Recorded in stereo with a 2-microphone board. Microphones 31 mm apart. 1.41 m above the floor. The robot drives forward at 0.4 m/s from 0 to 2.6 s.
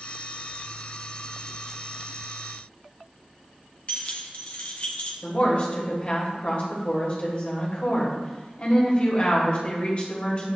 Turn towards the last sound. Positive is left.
turn(degrees=40)  # may be behind; listen again after turning